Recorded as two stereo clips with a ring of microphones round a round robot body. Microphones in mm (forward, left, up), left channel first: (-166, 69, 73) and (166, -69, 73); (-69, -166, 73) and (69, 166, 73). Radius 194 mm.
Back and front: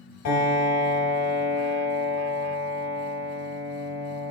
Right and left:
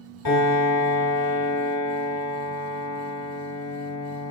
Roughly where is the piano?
Behind.